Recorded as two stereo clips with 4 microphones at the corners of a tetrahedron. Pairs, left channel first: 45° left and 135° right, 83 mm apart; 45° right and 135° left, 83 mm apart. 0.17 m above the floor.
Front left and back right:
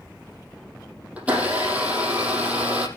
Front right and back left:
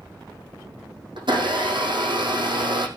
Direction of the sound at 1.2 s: 150° left.